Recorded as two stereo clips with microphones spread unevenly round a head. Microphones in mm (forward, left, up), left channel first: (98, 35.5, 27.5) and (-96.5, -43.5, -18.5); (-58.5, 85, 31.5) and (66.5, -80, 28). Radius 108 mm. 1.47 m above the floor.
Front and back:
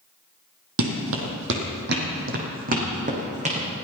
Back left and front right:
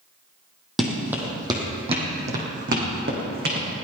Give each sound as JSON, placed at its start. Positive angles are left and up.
{"t": 0.8, "sound": "running footsteps", "azimuth_deg": -145, "distance_m": 2.5}